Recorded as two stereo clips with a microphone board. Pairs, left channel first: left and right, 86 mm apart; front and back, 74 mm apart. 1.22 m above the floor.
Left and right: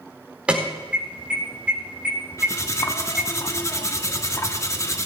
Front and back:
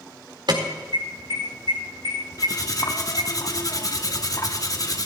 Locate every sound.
0.5 s an alarm: 165° right, 4 m
2.4 s cutlery clinking: 35° left, 1.3 m